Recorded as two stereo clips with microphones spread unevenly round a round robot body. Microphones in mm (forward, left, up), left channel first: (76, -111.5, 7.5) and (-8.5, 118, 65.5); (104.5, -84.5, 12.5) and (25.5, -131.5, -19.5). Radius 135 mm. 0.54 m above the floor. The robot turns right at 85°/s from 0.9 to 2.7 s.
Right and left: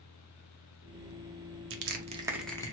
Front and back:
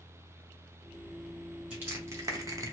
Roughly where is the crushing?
Behind left.